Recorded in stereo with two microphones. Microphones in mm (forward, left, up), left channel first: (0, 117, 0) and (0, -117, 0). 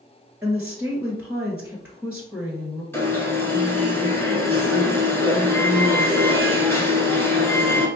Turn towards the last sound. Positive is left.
turn(degrees=10)  # may be behind; listen again after turning